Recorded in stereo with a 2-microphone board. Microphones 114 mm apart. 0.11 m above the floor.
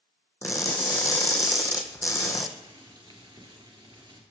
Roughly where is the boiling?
Right.